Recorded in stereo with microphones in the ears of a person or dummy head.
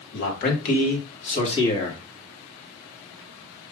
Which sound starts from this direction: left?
A man speaking, at 0.1 s.